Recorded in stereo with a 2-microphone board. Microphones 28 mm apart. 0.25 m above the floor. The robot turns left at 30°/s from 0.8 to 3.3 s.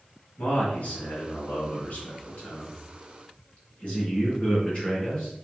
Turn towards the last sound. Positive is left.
turn(degrees=55)